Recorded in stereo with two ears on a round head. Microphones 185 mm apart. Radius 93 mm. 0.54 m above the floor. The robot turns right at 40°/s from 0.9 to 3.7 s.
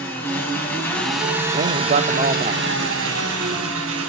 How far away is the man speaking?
About 0.9 m.